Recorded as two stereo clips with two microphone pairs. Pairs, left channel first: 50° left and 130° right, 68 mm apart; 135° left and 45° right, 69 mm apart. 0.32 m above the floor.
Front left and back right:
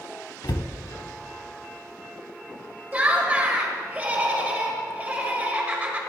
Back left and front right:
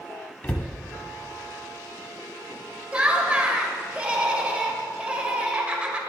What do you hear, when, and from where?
0.4 s a cupboard door: 65° left, 0.6 m
2.9 s laughter: 100° right, 1.4 m